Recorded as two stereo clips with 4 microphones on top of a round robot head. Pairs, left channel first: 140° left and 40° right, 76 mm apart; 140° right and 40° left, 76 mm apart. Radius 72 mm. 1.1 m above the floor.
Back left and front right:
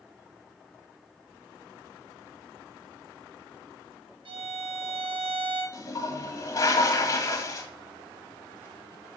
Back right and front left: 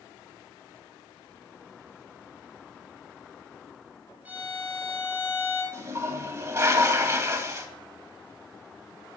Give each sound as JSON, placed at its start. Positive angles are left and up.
{"t": 4.2, "sound": "a violin", "azimuth_deg": -30, "distance_m": 2.5}
{"t": 5.7, "sound": "a toilet flushing", "azimuth_deg": 90, "distance_m": 1.5}